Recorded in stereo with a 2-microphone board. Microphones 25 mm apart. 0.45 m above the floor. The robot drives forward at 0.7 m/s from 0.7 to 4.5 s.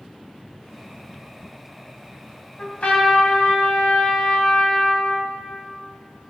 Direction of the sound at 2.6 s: 50° left (ahead or behind).